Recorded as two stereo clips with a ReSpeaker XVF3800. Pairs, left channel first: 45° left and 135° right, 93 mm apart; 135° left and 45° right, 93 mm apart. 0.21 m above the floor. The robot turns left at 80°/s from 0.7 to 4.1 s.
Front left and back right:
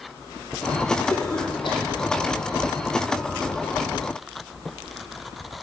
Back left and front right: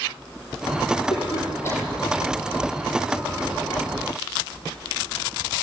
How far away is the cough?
About 7.5 m.